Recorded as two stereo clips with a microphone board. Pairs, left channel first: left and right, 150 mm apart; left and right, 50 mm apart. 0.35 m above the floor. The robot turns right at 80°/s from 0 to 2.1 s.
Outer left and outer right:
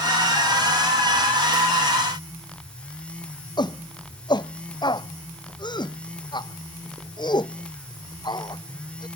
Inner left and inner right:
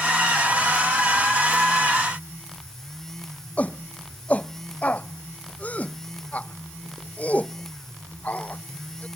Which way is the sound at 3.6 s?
30° left (ahead or behind).